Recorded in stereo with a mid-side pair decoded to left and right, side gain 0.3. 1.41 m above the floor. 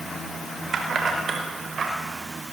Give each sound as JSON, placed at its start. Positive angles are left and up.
{"t": 0.7, "sound": "keys jangling", "azimuth_deg": -70, "distance_m": 4.0}